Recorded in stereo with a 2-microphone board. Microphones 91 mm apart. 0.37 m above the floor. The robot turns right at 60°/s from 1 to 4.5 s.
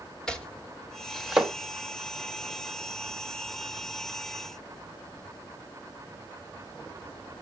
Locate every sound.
0.3 s chopping: 5° left (ahead or behind), 1.7 m; by 1.5 s 10° right (ahead or behind), 1.7 m